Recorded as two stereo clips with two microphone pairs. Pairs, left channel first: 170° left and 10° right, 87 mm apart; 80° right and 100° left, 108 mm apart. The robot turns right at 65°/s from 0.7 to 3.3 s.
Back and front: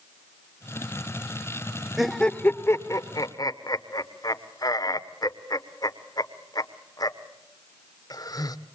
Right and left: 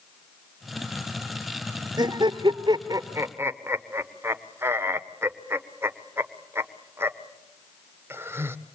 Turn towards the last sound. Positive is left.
turn(degrees=160)